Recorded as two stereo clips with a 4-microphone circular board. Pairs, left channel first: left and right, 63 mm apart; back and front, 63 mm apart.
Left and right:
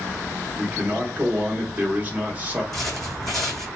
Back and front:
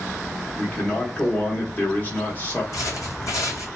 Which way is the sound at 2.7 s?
Straight behind.